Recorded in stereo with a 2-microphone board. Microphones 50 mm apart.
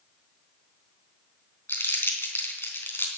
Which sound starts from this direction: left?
Crumpling, at 1.7 s.